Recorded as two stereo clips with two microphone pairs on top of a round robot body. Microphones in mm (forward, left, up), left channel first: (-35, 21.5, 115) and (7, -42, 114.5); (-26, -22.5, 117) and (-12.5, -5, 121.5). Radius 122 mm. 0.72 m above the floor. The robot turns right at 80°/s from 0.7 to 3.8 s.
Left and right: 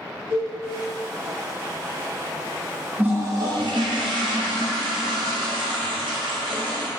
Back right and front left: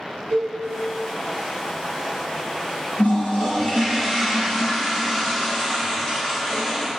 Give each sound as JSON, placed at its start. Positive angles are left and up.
{"t": 0.3, "sound": "a cowbell", "azimuth_deg": 15, "distance_m": 1.9}
{"t": 3.0, "sound": "a toilet flushing", "azimuth_deg": -130, "distance_m": 0.7}